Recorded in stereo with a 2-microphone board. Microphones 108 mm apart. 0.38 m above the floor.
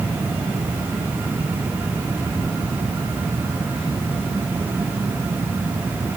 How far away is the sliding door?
No sliding door in this recording.